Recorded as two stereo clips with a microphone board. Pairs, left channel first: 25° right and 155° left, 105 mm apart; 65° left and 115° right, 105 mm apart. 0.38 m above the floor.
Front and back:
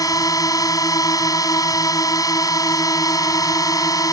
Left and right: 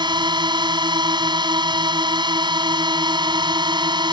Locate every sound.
0.0 s a drone: 75° right